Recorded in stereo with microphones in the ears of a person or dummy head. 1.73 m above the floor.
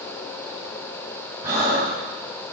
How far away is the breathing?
About 3.5 m.